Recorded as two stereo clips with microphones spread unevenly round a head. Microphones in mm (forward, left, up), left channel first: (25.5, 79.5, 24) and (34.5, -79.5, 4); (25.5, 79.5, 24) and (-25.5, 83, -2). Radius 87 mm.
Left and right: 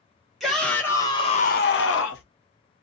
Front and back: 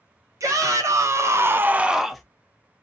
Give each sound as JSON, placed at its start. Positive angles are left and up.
{"t": 0.4, "sound": "a shout", "azimuth_deg": -175, "distance_m": 1.2}